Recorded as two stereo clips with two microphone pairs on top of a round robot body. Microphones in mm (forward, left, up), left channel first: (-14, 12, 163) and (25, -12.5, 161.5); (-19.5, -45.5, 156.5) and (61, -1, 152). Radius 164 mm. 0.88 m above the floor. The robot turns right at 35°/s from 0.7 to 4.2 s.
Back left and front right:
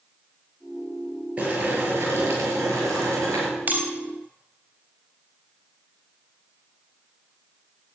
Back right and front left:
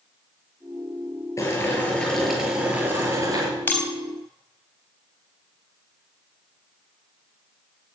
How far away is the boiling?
About 6 m.